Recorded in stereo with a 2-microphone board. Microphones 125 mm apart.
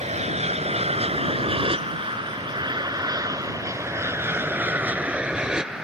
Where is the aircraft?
60° right (ahead or behind); by 5.9 s 5° right (ahead or behind).